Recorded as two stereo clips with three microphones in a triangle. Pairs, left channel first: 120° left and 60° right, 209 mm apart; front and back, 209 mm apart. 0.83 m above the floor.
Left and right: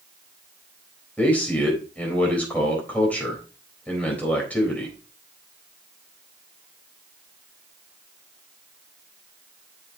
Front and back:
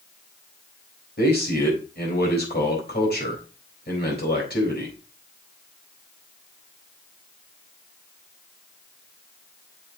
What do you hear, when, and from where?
1.2 s a man speaking: 35° left, 4 m